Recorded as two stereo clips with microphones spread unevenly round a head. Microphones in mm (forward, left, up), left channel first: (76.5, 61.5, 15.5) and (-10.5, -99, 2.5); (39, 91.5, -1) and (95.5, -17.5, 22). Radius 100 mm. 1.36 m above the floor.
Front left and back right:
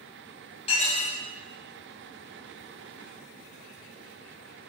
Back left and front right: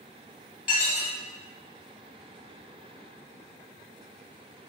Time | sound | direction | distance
0.7 | dishes clattering | 120° left | 0.7 m